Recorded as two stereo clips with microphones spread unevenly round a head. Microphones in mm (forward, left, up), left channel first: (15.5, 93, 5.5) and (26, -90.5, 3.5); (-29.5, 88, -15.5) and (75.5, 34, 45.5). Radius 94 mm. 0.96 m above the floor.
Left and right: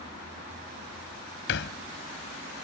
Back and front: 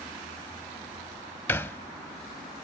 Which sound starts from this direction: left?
A thud, at 1.5 s.